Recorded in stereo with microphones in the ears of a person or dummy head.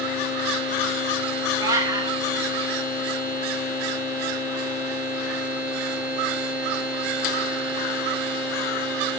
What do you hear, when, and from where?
1.6 s a cat meowing: 20° right (ahead or behind), 2.5 m